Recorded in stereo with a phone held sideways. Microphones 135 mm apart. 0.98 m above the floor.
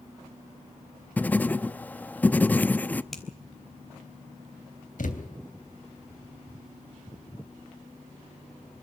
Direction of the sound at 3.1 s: Centre (ahead or behind).